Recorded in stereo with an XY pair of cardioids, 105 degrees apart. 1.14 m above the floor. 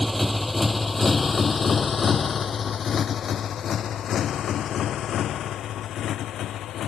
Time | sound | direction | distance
0.0 | a motorcycle | straight ahead | ?